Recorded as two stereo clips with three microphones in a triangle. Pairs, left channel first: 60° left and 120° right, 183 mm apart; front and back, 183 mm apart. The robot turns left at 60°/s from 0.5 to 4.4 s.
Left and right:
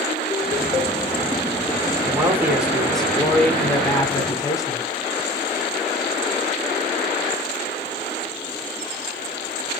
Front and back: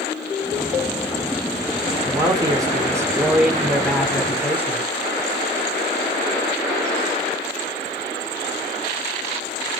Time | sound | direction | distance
2.0 | a man speaking | 160° right | 0.8 m